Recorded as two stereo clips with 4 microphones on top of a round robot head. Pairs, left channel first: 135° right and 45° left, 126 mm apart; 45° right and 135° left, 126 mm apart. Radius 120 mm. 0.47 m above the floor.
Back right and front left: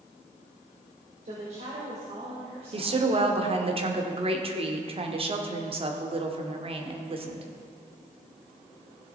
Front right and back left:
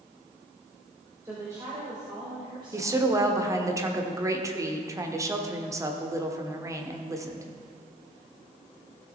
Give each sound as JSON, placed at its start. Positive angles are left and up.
{"t": 1.2, "sound": "a woman speaking", "azimuth_deg": 70, "distance_m": 2.0}
{"t": 2.7, "sound": "a woman speaking", "azimuth_deg": 75, "distance_m": 1.4}